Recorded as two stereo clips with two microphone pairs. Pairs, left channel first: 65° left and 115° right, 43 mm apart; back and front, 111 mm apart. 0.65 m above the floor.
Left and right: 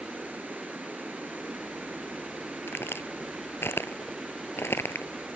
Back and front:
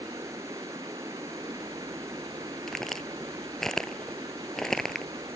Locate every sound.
0.0 s running water: 65° right
2.7 s a crack: 90° left